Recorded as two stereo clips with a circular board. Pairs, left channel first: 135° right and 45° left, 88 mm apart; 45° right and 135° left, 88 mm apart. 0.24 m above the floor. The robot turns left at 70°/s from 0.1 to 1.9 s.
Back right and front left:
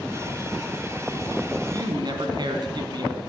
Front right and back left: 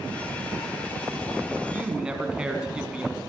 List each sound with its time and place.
1.6 s a man speaking: 75° left, 2 m; by 3.2 s 60° left, 2 m